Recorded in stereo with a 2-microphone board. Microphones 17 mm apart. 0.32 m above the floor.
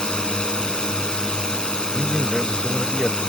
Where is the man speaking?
30° left (ahead or behind).